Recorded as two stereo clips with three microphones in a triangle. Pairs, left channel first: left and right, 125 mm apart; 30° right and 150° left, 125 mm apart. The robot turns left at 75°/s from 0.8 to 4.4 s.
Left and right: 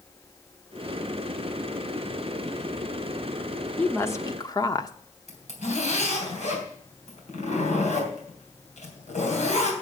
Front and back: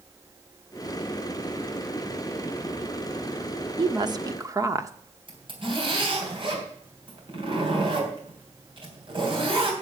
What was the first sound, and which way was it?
A woman speaking, 160° left.